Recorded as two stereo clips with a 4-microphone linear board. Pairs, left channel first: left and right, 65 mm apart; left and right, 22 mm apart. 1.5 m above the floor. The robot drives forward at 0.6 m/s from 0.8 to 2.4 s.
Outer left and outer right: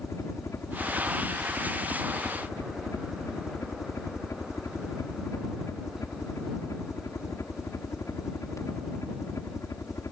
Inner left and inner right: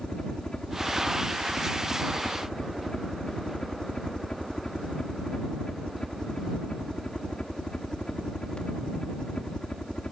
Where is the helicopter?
50° left (ahead or behind).